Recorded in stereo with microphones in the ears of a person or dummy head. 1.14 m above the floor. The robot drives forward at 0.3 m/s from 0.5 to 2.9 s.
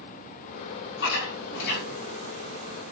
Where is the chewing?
70° left (ahead or behind), 3.5 m.